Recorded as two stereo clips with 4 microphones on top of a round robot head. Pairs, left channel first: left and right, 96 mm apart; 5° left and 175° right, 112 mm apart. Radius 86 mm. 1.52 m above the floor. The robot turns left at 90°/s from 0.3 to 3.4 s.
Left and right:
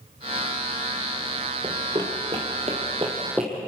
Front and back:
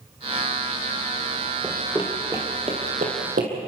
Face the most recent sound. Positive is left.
turn(degrees=-175)